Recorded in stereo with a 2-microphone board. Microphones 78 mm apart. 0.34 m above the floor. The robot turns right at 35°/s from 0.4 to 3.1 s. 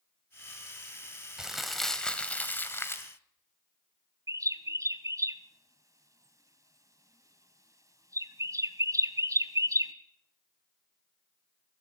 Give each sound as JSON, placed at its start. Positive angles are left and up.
{"t": 1.4, "sound": "crumpling", "azimuth_deg": -10, "distance_m": 2.0}
{"t": 4.3, "sound": "a bird", "side_deg": -45, "distance_m": 1.2}